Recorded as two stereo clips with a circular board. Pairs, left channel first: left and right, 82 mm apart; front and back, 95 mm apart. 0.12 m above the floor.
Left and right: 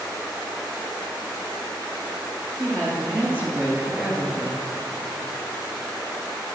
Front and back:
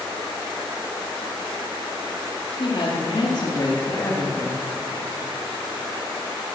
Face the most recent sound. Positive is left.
turn(degrees=-25)